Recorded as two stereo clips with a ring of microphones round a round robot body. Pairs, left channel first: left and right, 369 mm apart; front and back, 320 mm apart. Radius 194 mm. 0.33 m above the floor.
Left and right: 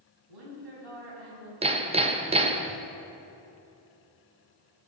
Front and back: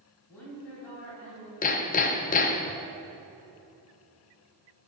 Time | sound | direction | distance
0.3 | a woman speaking | 85° right | 3.5 m
1.6 | hammering | 35° right | 0.6 m